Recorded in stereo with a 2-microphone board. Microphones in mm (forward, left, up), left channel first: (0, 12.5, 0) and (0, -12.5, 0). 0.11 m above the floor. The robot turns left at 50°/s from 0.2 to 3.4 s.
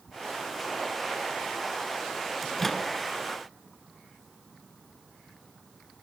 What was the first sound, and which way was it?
A microwave, 5° left (ahead or behind).